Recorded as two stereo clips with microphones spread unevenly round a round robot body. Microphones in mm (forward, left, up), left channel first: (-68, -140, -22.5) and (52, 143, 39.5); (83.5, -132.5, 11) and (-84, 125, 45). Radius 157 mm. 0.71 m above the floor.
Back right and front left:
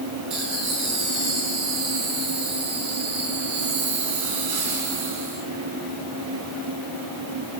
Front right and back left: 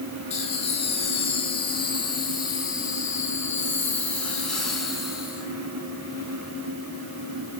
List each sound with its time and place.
0.3 s laughter: 15° left, 8.5 m; by 5.5 s 35° left, 6.5 m